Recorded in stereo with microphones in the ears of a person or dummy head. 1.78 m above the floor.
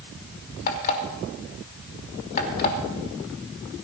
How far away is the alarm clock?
About 2.5 m.